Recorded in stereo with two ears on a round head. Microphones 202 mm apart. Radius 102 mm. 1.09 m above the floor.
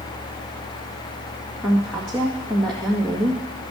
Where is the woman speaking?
5° left (ahead or behind), 1.8 m.